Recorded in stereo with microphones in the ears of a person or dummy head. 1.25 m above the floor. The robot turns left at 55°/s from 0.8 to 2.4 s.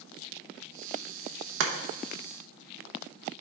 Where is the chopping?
80° right, 0.8 m; by 1.7 s 75° right (ahead or behind), 0.8 m.